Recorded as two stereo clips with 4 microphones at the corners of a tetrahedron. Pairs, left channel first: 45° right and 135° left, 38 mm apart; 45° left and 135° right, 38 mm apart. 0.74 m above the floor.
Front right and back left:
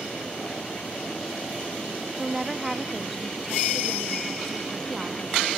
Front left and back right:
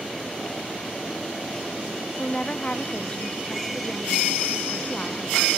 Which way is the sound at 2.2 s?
60° left.